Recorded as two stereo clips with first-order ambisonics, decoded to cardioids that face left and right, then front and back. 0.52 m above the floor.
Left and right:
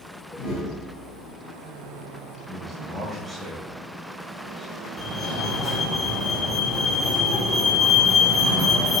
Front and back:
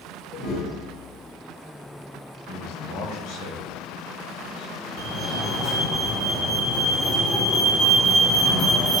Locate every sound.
0.3 s a whoosh: 45° left, 4.5 m
2.5 s a man speaking: 10° right, 2.5 m
5.0 s a fire alarm: 35° left, 2.5 m